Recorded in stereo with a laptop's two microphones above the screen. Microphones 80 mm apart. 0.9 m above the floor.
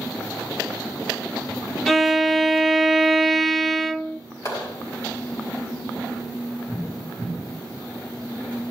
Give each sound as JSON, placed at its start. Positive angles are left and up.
{"t": 1.9, "sound": "a violin", "side_deg": 5, "distance_m": 0.6}
{"t": 4.5, "sound": "a clap", "side_deg": 45, "distance_m": 5.5}